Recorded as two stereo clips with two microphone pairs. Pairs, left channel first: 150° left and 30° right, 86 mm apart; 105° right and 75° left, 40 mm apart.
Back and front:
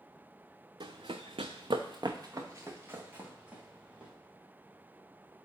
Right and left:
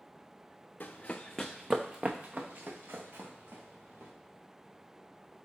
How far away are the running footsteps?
About 0.6 m.